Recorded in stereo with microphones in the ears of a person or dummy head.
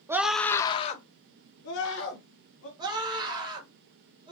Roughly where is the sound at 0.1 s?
Centre.